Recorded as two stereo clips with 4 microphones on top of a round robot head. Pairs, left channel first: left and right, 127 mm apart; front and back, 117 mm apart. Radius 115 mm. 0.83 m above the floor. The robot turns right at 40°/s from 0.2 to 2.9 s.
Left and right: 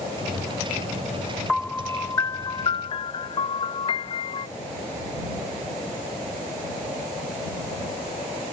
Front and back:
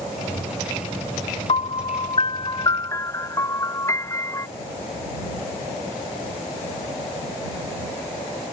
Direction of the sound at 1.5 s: Straight ahead.